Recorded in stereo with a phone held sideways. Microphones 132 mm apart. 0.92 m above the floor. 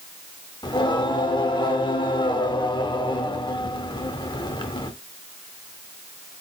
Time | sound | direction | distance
0.6 | singing | 35° left (ahead or behind) | 0.6 m